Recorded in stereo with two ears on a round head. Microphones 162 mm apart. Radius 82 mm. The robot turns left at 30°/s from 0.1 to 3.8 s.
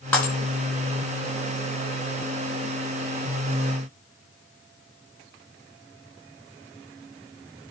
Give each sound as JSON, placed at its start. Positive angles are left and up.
{"t": 0.1, "sound": "breaking glass", "side_deg": 10, "distance_m": 5.0}